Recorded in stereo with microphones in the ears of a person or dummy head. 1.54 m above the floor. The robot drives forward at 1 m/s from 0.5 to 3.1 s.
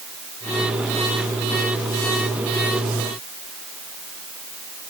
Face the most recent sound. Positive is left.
No sound to turn to.